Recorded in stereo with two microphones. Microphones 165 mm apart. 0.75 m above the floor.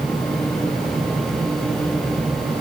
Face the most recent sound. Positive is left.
No sound to turn to.